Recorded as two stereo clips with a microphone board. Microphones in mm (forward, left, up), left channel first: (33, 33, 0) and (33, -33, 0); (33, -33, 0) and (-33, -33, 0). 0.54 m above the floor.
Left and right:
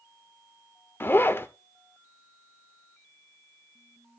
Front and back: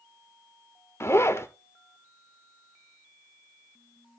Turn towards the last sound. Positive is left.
turn(degrees=40)